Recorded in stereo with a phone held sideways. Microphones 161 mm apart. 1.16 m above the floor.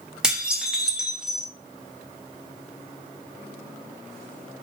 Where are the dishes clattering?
5° right (ahead or behind), 0.6 m.